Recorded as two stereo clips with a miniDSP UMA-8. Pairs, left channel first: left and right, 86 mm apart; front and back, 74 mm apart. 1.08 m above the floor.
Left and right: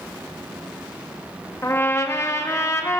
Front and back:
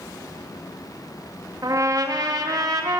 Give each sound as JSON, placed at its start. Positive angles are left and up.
{"t": 1.6, "sound": "a trumpet", "azimuth_deg": 145, "distance_m": 1.3}